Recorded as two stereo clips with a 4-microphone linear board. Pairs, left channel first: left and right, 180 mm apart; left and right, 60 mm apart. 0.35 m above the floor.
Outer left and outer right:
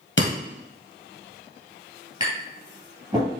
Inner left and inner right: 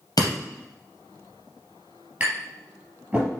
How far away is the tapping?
About 3.5 m.